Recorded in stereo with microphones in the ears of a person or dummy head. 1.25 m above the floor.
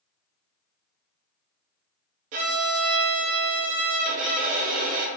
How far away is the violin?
About 0.6 m.